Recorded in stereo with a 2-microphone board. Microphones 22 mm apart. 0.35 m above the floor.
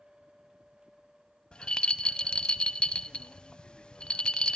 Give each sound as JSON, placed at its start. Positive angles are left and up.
{"t": 1.5, "sound": "a rattle", "side_deg": 50, "distance_m": 0.6}